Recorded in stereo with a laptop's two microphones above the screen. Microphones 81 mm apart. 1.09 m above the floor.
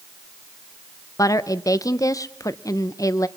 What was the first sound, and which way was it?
A woman speaking, 45° left (ahead or behind).